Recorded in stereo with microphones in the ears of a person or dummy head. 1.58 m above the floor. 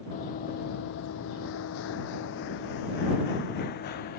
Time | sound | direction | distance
0.1 | running footsteps | 40° left (ahead or behind) | ?